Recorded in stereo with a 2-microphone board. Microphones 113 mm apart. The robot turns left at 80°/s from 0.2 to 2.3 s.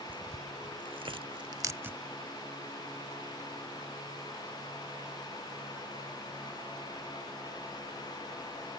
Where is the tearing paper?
15° right (ahead or behind); by 2.0 s 10° right (ahead or behind).